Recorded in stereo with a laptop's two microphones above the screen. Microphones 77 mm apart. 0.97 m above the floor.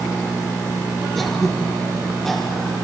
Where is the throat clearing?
5° left (ahead or behind), 3.5 m.